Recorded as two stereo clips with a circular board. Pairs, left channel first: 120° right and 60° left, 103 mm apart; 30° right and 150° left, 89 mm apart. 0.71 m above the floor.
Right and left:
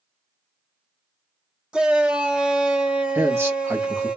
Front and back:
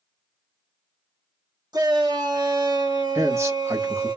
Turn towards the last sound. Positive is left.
turn(degrees=115)